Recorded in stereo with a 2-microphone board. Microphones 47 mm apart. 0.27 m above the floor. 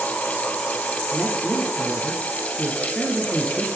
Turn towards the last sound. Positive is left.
turn(degrees=20)  # may be behind; listen again after turning